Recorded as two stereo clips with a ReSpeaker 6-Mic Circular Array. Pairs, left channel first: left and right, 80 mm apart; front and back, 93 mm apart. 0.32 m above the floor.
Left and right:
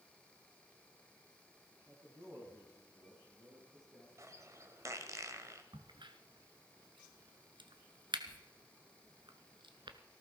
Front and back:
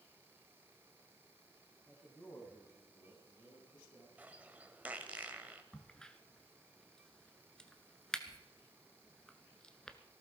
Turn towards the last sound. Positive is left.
turn(degrees=-85)